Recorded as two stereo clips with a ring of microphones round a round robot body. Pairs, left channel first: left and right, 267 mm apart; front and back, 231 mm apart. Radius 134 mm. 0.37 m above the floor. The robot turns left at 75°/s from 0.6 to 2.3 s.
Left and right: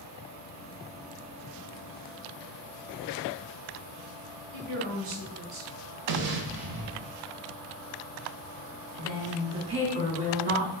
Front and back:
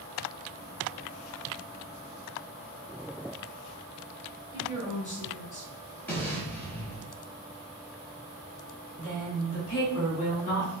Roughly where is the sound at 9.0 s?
Ahead right.